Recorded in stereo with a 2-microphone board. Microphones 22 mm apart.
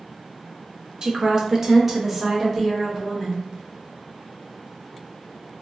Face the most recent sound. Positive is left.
turn(degrees=-5)  # may be behind; listen again after turning